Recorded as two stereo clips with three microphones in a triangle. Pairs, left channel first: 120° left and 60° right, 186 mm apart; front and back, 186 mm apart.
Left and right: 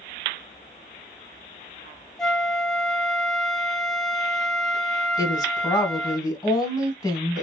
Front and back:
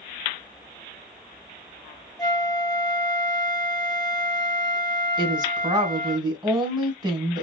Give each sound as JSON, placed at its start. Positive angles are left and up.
{"t": 2.2, "sound": "a flute", "azimuth_deg": 35, "distance_m": 0.6}
{"t": 5.2, "sound": "a woman speaking", "azimuth_deg": 160, "distance_m": 1.2}